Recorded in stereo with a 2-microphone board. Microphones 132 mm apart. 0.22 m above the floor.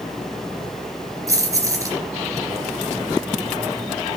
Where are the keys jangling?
25° right (ahead or behind), 3 m.